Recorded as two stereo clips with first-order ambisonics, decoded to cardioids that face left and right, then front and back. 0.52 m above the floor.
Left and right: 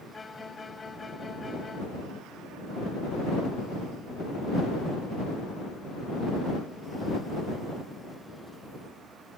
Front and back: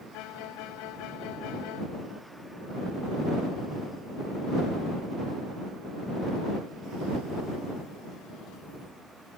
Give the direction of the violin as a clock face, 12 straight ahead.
12 o'clock.